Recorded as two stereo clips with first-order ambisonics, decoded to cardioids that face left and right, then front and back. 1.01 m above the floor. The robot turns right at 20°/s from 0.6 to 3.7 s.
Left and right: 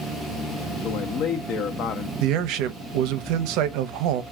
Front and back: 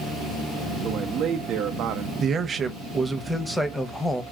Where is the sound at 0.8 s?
125° left, 0.6 m; by 2.1 s 150° left, 0.6 m.